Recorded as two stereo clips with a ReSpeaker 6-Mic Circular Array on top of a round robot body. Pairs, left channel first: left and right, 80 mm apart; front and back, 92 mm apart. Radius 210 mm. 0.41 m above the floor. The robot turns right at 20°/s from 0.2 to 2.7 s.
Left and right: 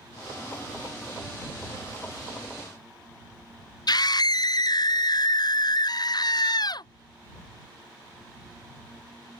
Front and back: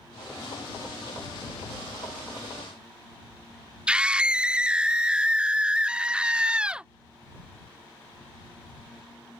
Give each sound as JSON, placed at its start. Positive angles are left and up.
{"t": 3.9, "sound": "a scream", "azimuth_deg": 100}